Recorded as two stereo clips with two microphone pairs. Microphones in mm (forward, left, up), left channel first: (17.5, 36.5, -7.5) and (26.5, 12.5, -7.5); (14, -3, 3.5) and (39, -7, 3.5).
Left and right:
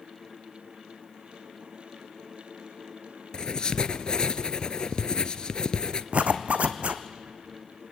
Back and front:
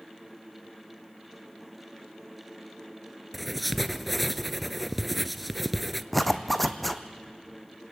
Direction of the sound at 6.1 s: 95° right.